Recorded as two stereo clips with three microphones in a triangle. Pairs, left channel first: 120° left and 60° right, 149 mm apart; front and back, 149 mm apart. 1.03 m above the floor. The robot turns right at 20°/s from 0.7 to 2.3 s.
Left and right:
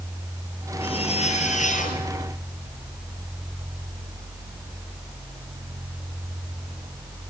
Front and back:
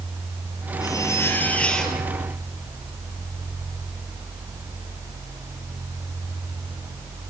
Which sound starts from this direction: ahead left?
A zipper, at 0.8 s.